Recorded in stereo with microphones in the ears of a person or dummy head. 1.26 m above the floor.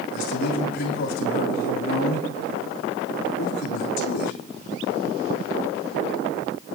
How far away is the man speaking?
About 3.5 m.